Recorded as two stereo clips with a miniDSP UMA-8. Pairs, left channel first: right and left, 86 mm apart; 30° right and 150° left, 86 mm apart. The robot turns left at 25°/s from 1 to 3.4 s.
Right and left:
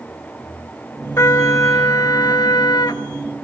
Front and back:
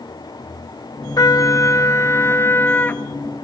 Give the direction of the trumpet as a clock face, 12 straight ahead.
2 o'clock.